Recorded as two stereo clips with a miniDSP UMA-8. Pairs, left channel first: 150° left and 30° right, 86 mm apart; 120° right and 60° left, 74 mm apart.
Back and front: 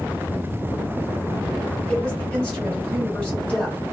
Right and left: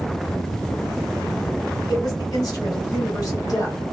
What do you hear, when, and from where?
1.9 s a woman speaking: 140° right, 1.5 m